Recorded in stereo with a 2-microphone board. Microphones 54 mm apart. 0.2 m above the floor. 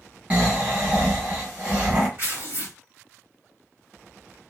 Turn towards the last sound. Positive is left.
turn(degrees=-45)  # may be behind; listen again after turning